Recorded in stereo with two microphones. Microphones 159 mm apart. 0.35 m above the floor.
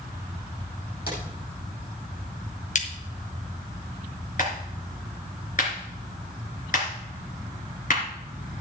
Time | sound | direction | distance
1.1 | a drawer | 80° left | 6 m
2.8 | a crack | 55° left (ahead or behind) | 2 m
4.4 | a clap | 55° left (ahead or behind) | 3.5 m